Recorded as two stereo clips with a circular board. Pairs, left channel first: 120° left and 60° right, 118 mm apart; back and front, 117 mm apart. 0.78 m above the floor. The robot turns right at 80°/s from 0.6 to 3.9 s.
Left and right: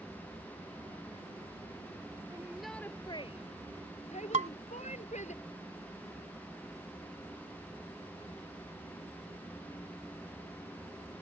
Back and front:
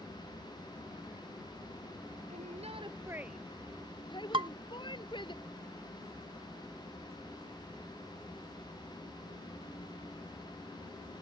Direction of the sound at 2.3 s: 5° left.